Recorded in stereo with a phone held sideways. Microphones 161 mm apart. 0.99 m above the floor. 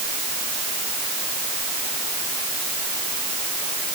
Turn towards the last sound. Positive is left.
No sound to turn to.